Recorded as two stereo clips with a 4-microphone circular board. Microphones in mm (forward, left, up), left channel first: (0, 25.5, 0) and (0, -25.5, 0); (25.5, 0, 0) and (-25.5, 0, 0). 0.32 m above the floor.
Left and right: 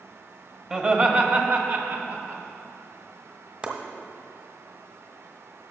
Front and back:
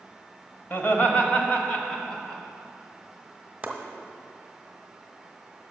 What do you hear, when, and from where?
0.7 s laughter: 30° right, 1.2 m; by 2.4 s 75° right, 2 m
3.6 s chopping: 135° right, 1.2 m